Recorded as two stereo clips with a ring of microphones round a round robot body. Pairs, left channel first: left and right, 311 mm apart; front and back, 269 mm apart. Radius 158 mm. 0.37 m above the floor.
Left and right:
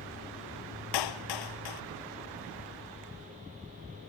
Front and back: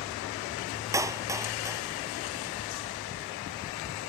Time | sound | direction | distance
0.9 | a clap | 100° left | ?